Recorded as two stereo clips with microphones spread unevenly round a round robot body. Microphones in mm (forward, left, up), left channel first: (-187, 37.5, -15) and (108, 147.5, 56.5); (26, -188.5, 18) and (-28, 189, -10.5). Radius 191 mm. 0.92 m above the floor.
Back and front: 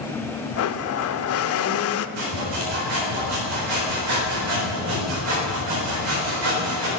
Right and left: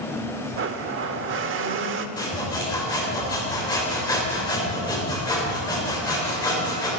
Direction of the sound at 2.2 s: Straight ahead.